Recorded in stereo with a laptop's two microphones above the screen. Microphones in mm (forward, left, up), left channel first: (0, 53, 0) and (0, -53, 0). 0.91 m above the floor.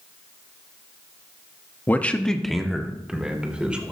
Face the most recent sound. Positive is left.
turn(degrees=-10)  # may be behind; listen again after turning